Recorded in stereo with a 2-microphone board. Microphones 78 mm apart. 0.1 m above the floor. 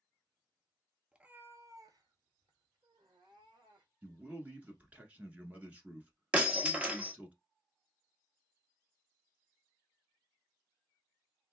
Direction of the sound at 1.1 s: 10° right (ahead or behind).